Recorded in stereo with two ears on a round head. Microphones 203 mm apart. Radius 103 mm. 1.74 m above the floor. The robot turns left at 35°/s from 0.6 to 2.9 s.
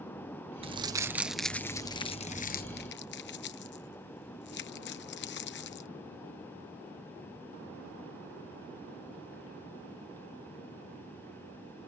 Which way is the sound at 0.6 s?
25° right (ahead or behind).